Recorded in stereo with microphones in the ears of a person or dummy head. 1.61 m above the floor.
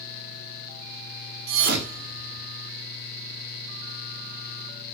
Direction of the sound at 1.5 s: 60° right (ahead or behind).